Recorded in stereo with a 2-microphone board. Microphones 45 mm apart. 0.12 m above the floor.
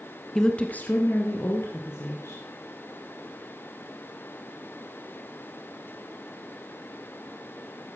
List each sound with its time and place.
0.3 s a woman speaking: 10° left (ahead or behind), 1.1 m; by 2.4 s 70° left (ahead or behind), 3.5 m